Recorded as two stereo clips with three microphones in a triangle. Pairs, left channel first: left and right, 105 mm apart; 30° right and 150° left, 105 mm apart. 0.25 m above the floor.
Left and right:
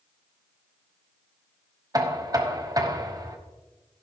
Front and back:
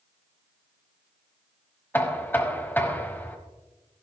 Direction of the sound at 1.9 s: 90° right.